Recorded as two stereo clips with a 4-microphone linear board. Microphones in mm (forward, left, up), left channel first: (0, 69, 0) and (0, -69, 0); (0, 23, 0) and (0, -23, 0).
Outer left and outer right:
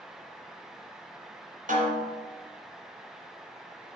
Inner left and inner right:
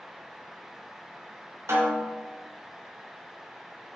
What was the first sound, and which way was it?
A snare drum, 75° right (ahead or behind).